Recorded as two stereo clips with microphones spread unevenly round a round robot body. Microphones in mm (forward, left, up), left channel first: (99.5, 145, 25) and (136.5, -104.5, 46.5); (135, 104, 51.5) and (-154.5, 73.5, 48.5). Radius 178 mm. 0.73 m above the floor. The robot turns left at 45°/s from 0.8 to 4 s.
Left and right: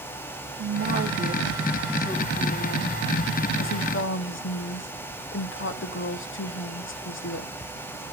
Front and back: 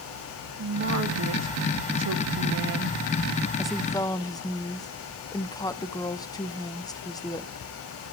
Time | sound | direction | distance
0.6 | a woman speaking | 135° right | 1.1 m